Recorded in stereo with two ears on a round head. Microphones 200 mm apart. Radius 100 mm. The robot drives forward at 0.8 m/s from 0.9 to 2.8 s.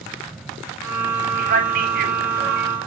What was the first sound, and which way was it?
A man speaking, 35° right (ahead or behind).